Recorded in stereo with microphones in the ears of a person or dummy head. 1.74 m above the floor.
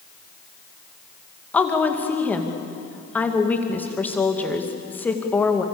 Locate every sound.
1.5 s a woman speaking: 5° left (ahead or behind), 2.5 m